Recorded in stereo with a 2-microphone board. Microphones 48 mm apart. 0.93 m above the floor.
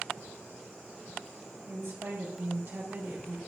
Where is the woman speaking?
80° right, 1.5 m; by 3.4 s 35° right (ahead or behind), 1.2 m.